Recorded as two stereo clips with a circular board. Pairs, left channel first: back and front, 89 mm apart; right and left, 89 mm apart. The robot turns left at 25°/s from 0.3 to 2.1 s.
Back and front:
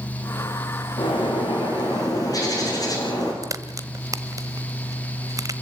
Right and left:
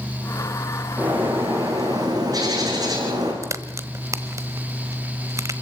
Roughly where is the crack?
Ahead left.